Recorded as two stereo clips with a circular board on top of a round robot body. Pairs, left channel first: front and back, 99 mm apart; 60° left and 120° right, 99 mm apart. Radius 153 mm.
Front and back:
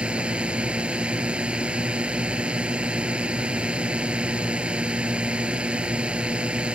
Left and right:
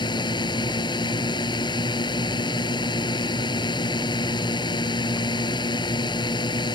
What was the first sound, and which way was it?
A drone, 100° left.